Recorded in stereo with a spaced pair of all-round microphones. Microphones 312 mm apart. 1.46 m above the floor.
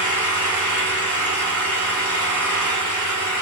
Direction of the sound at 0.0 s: 65° left (ahead or behind).